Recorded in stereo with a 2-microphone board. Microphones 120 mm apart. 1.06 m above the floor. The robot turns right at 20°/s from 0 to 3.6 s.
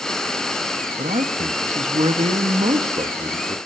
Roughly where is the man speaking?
Right.